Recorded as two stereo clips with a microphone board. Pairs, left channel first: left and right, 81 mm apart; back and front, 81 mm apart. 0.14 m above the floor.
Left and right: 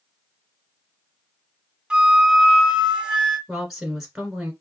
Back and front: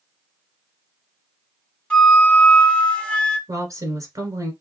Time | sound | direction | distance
1.9 | a flute | 140° right | 0.8 m
3.5 | a woman speaking | 5° right | 1.5 m